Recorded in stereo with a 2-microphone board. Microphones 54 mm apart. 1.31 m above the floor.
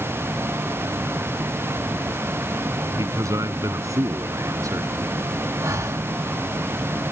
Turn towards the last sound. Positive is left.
turn(degrees=-75)  # may be behind; listen again after turning